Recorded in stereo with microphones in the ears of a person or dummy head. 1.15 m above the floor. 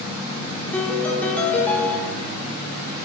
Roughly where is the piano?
Centre.